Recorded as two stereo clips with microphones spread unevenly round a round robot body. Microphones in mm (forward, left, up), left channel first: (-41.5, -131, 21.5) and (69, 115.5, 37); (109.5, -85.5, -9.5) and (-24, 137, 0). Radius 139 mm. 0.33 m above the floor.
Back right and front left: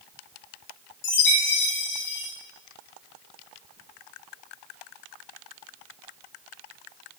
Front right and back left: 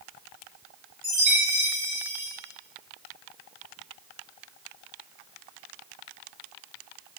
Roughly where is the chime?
Behind.